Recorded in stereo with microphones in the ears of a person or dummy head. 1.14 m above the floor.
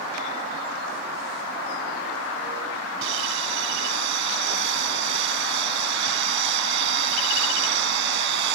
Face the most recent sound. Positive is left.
turn(degrees=-70)  # may be behind; listen again after turning